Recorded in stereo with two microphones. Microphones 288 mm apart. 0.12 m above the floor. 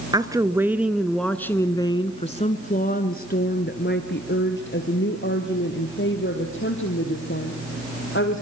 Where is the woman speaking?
15° right (ahead or behind), 1.4 m; by 8.4 s 45° left (ahead or behind), 4 m.